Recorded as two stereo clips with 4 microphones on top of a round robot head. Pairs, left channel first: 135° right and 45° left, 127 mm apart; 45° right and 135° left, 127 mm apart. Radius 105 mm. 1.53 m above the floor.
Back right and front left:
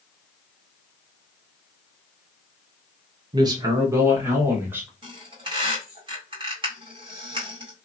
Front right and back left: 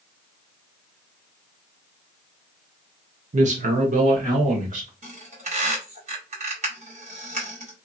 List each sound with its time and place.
3.3 s a man speaking: 100° left, 0.6 m; by 4.9 s 120° left, 1.6 m
5.0 s a squeak: 95° left, 1.7 m